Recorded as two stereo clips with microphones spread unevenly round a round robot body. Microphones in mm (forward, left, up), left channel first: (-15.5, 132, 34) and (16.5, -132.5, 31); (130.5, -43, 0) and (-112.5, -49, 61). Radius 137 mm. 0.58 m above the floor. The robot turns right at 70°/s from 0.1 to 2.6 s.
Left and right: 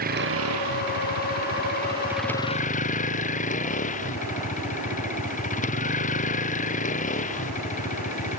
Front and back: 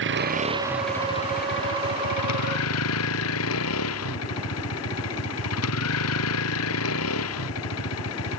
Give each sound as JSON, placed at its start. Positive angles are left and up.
{"t": 0.0, "sound": "a vehicle", "azimuth_deg": -140}